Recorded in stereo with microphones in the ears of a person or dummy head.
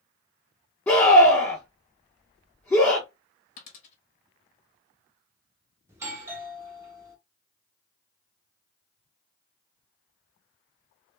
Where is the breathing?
I don't hear breathing.